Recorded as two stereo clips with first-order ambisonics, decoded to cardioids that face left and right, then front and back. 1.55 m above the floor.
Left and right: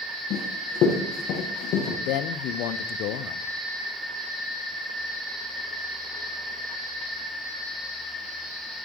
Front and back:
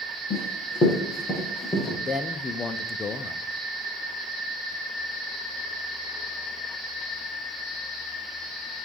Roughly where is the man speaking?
Left.